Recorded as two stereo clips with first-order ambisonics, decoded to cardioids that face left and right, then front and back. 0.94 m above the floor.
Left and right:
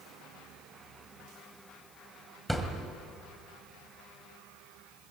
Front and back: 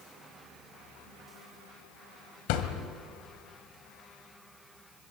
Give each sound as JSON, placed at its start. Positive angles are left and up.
{"t": 2.5, "sound": "a thud", "azimuth_deg": -5, "distance_m": 2.0}